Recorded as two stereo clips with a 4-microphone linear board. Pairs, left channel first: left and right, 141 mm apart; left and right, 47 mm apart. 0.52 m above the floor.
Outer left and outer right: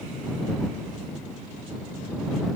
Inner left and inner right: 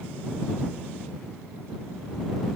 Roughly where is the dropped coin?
No dropped coin in this recording.